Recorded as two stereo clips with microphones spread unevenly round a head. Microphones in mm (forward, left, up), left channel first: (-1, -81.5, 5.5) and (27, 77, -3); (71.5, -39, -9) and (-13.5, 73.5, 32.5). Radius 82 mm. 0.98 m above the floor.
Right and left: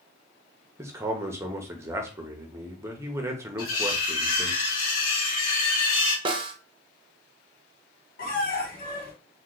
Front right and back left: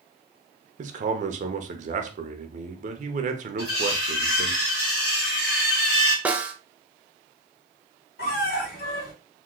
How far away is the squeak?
About 1.6 m.